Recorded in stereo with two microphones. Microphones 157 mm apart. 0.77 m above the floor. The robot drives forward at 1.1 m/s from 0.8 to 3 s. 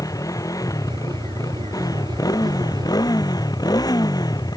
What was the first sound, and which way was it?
A motorcycle, 20° left (ahead or behind).